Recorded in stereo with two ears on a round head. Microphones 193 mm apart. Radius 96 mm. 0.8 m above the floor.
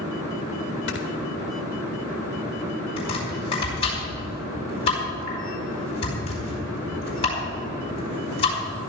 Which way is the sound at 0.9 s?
55° left (ahead or behind).